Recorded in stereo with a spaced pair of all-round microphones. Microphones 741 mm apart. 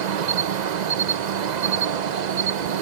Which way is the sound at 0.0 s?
70° right (ahead or behind).